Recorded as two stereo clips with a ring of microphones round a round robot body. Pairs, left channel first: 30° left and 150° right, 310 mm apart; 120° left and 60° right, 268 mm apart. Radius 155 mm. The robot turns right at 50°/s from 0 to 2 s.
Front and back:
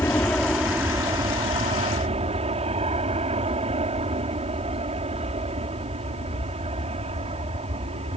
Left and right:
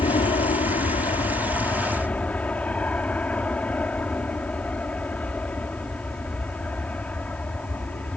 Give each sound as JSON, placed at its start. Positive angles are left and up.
{"t": 0.0, "sound": "an aircraft", "azimuth_deg": 95}